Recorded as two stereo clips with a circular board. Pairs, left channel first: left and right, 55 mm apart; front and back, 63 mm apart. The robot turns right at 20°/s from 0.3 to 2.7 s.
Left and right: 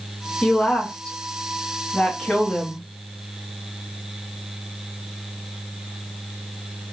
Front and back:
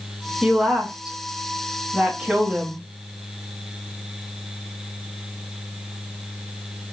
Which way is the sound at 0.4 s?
110° left.